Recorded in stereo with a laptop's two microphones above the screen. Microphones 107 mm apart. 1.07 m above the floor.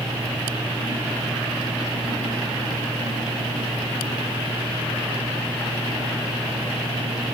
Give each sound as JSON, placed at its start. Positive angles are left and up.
{"t": 0.0, "sound": "a fan", "side_deg": 40, "distance_m": 9.0}